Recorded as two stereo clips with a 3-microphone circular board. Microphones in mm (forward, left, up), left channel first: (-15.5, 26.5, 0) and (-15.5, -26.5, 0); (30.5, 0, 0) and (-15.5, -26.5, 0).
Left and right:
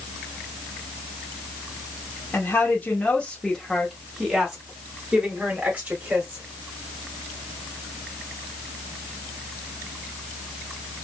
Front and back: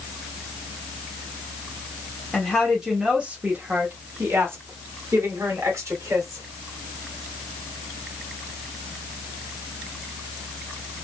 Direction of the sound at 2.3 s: 105° left.